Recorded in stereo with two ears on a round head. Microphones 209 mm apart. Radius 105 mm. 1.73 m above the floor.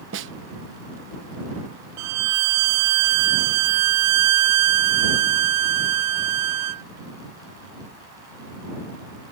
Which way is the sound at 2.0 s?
80° right.